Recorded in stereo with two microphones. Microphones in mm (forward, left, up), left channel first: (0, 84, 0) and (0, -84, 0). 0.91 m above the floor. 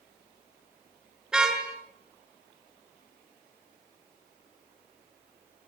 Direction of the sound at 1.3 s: 5° right (ahead or behind).